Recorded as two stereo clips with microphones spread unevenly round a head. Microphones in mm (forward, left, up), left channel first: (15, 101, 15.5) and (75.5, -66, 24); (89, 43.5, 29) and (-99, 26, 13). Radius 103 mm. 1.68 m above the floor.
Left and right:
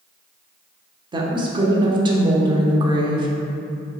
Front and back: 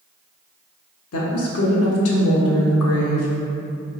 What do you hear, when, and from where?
1.1 s a woman speaking: 5° right, 0.6 m